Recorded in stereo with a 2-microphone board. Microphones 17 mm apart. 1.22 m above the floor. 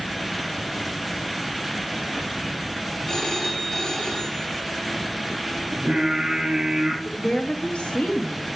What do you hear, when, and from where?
3.1 s a phone ringing: 35° left (ahead or behind), 2.5 m
5.7 s singing: 35° right (ahead or behind), 3.5 m
7.0 s a woman speaking: 70° left (ahead or behind), 1.4 m